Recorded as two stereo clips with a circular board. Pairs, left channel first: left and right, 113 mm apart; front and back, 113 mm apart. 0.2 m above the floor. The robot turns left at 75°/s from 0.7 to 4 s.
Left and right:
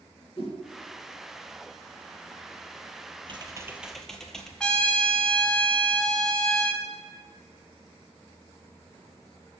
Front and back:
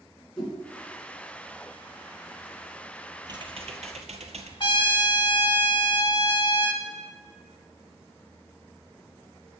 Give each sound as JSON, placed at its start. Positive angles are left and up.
{"t": 0.4, "sound": "a whoosh", "azimuth_deg": 85, "distance_m": 2.5}
{"t": 3.3, "sound": "typing on a keyboard", "azimuth_deg": -125, "distance_m": 0.7}
{"t": 4.6, "sound": "a trumpet", "azimuth_deg": 15, "distance_m": 0.7}